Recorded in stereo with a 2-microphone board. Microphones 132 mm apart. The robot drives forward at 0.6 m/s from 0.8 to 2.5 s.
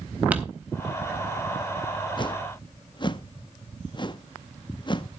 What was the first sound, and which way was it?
Crumpling, 10° right (ahead or behind).